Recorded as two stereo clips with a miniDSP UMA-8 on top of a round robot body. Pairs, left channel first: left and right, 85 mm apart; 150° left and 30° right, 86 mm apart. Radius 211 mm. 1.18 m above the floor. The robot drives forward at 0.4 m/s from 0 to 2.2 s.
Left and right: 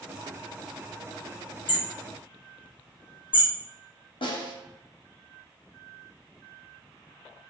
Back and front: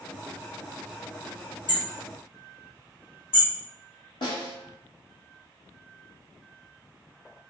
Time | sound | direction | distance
1.7 | hammering | 120° left | 1.0 m
4.2 | a snare drum | 115° left | 0.8 m